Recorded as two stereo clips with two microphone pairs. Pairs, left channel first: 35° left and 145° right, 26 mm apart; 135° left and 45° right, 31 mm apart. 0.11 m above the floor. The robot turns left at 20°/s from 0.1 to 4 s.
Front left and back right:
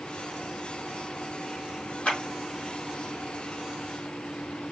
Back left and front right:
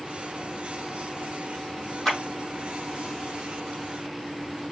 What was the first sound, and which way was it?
A clap, 70° left.